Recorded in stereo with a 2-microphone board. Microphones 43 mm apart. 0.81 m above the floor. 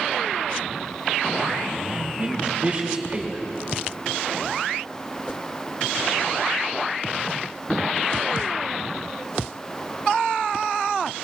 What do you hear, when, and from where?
1.9 s a man speaking: 35° right (ahead or behind), 4.5 m